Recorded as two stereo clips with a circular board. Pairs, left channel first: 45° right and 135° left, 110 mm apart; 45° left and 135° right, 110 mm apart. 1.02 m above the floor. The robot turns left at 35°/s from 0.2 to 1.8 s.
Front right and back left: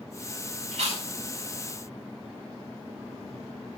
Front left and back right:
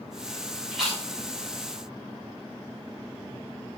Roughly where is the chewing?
Behind left.